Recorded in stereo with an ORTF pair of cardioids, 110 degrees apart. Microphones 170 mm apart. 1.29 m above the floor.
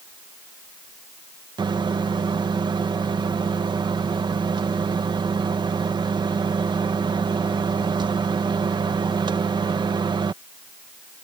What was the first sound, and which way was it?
A microwave, 25° right.